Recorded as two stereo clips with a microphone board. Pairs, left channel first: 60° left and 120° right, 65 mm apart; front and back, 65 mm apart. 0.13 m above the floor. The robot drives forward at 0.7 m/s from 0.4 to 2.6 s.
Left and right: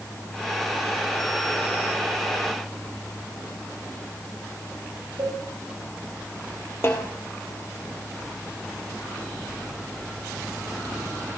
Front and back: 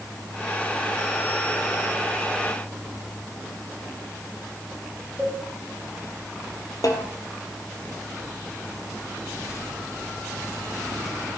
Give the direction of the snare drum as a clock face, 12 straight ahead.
12 o'clock.